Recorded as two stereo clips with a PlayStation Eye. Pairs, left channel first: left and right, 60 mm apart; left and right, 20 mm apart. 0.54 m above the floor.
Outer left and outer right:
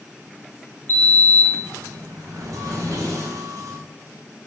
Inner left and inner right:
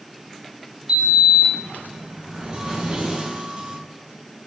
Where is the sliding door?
60° right (ahead or behind), 1.0 m.